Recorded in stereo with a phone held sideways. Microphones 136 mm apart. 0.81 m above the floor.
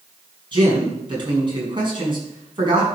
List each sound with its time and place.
0.5 s a man speaking: 35° right (ahead or behind), 6 m